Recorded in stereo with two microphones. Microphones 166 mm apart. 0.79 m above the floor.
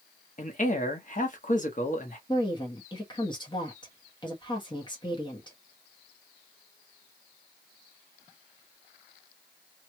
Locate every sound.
0.4 s a man speaking: 50° left (ahead or behind), 1.1 m
2.3 s a woman speaking: 25° left (ahead or behind), 1.2 m